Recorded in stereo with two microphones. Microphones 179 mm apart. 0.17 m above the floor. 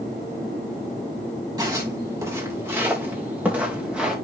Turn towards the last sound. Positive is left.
turn(degrees=-5)  # may be behind; listen again after turning